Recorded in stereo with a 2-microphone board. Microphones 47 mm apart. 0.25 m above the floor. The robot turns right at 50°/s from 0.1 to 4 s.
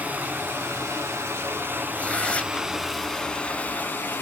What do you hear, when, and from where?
0.0 s running water: 140° right, 1.5 m; by 4.2 s 55° left, 1.5 m
1.9 s tearing paper: 25° left (ahead or behind), 0.5 m